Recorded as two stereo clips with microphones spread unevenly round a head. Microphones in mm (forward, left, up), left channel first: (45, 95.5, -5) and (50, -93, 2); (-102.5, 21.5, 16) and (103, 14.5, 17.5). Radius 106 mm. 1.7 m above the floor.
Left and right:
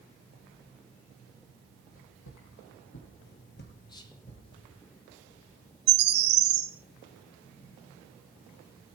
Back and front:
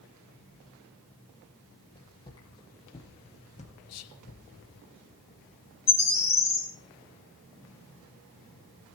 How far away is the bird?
About 2.5 m.